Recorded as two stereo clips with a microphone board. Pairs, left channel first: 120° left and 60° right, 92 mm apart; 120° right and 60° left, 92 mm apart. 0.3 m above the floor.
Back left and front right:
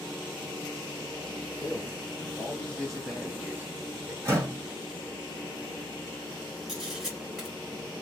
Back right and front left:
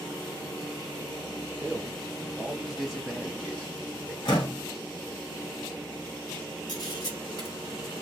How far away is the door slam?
About 1.8 m.